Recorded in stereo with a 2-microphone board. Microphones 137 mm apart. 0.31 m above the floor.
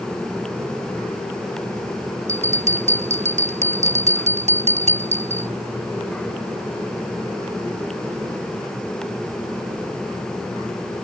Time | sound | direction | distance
2.3 | a bell | 60° right (ahead or behind) | ?